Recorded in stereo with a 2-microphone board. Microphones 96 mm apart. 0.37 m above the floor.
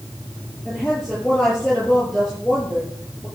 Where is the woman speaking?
5° right (ahead or behind), 6.5 m.